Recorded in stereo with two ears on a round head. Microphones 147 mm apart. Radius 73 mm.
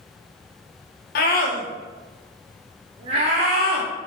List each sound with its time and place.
1.1 s a scream: 60° left (ahead or behind), 1.7 m; by 3.9 s 60° right (ahead or behind), 1.6 m